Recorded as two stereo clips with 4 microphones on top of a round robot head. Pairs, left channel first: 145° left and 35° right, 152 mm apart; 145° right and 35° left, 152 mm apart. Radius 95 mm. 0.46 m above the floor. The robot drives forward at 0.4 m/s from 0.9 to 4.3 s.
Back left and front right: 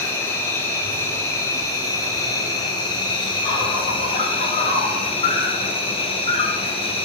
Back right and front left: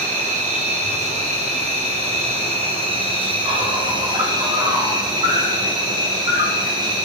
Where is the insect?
70° left, 3.5 m; by 7.1 s 95° left, 3.5 m.